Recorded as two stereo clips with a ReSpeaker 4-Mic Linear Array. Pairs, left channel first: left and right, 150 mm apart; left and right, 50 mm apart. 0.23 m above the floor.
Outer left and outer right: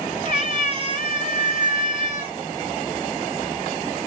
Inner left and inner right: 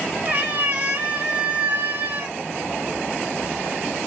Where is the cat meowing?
40° right (ahead or behind), 1.6 m.